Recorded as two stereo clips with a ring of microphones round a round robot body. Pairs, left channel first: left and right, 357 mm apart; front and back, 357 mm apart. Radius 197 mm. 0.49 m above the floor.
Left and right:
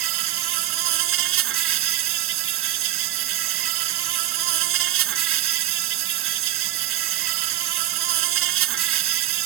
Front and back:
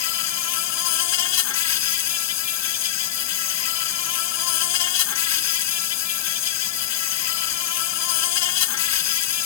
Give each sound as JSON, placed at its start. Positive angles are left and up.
{"t": 0.0, "sound": "an insect", "azimuth_deg": -40}